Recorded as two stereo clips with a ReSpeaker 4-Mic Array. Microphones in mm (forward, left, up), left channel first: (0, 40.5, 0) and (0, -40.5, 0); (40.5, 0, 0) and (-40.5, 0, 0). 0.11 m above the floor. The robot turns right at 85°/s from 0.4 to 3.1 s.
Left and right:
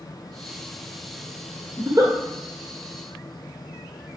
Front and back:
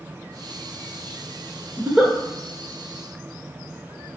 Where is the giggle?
120° right, 1.0 m; by 2.1 s 90° right, 1.0 m.